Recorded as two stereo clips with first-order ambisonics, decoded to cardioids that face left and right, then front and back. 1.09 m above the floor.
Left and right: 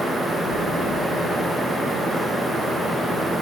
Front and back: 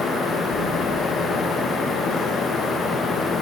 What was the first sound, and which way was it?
A splash, 90° left.